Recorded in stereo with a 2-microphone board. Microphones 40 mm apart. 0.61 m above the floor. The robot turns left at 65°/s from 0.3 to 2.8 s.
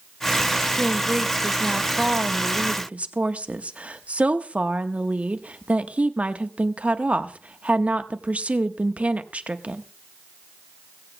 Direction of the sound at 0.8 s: 30° left.